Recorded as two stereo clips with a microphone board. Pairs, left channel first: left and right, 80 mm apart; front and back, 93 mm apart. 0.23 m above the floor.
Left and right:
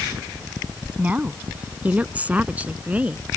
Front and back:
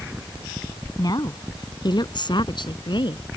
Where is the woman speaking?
25° right; by 3.2 s 20° right.